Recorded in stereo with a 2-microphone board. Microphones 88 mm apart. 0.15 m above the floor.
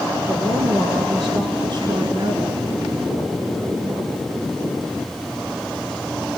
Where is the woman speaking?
65° right (ahead or behind), 2.5 m; by 2.6 s 40° right (ahead or behind), 1.7 m.